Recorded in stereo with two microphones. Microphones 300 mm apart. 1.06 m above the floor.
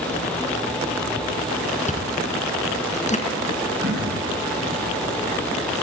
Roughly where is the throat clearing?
Right.